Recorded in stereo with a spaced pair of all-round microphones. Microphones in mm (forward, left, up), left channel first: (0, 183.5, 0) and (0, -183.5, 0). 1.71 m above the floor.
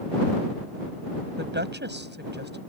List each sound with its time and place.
1.4 s a woman speaking: 30° right (ahead or behind)